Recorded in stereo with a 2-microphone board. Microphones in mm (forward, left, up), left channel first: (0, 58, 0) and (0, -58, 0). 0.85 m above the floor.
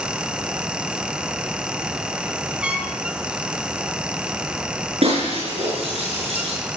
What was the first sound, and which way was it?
A trumpet, 10° right (ahead or behind).